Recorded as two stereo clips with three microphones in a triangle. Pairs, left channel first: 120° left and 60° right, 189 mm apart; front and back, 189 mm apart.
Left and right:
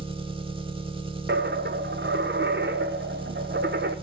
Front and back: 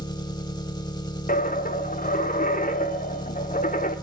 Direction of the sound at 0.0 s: 40° right.